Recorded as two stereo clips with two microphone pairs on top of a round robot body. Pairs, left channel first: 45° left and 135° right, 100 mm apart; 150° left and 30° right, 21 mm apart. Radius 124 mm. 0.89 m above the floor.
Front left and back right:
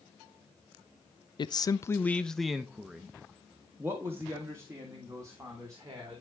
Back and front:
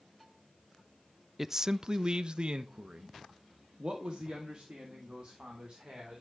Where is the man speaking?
55° left, 0.6 m; by 6.2 s 80° right, 3 m.